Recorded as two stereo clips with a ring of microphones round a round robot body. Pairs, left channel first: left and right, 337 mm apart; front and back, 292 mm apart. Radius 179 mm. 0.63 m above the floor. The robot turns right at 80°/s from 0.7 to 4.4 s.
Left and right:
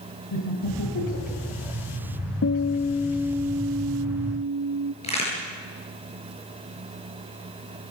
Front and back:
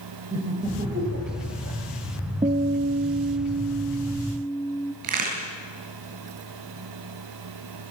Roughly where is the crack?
Behind.